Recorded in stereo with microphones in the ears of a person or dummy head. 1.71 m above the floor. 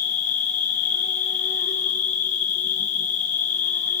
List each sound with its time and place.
0.0 s an insect: 35° left (ahead or behind), 1.2 m